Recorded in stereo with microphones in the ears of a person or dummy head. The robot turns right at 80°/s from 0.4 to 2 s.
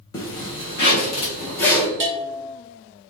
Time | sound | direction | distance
0.1 | a zipper | 20° left (ahead or behind) | 0.7 m
2.0 | a bell | 55° right (ahead or behind) | 1.2 m